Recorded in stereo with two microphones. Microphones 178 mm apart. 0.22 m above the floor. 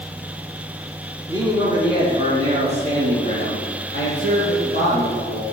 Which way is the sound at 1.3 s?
20° right (ahead or behind).